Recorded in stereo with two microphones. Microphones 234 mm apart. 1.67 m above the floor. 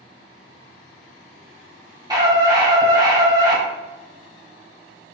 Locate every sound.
2.1 s a scream: 15° right (ahead or behind), 1.8 m